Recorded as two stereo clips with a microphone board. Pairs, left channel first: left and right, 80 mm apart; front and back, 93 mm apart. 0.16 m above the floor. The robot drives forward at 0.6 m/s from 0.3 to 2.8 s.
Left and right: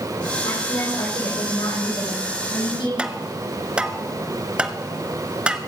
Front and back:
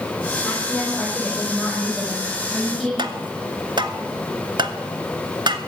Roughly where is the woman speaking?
Left.